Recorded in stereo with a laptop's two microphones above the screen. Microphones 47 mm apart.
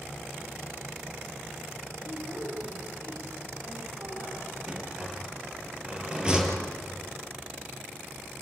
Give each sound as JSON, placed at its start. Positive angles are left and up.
{"t": 2.0, "sound": "a woman speaking", "side_deg": -50, "distance_m": 8.0}
{"t": 4.7, "sound": "a rattle", "side_deg": -15, "distance_m": 4.5}